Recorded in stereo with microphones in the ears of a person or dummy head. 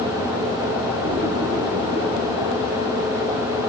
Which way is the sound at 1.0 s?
35° right (ahead or behind).